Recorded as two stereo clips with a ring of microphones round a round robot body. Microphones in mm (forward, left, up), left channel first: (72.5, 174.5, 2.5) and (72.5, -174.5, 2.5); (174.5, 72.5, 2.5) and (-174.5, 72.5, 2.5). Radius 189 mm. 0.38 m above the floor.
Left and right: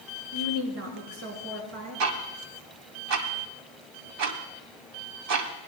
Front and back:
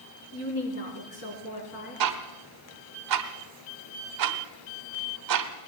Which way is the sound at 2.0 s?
140° right.